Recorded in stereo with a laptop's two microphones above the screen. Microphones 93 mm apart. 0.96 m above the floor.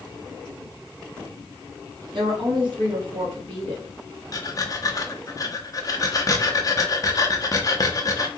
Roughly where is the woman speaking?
Right.